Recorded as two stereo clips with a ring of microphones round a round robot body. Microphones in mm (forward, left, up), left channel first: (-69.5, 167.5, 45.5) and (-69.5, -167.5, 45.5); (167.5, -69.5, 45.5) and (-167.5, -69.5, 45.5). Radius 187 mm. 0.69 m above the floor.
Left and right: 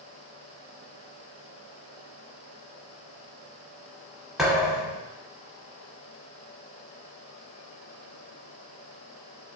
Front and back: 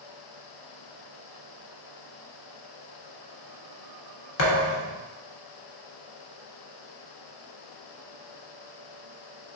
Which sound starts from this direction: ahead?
A thud, at 4.4 s.